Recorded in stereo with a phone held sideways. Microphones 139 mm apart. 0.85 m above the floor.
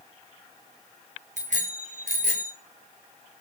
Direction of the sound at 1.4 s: 65° right (ahead or behind).